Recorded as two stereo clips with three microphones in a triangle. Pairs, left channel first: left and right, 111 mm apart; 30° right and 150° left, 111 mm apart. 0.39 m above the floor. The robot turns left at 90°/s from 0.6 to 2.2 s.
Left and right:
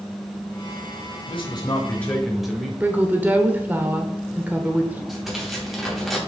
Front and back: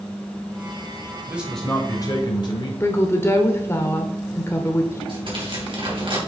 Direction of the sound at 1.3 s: 85° left.